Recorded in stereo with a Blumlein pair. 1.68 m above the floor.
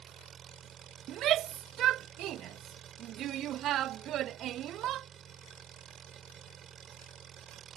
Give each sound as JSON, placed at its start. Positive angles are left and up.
{"t": 0.0, "sound": "an engine running", "azimuth_deg": -25}
{"t": 1.1, "sound": "a shout", "azimuth_deg": -30}